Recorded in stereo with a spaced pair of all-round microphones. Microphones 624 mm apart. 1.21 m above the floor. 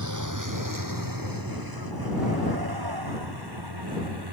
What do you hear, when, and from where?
0.0 s a vehicle: 30° right (ahead or behind); by 4.3 s 40° right (ahead or behind)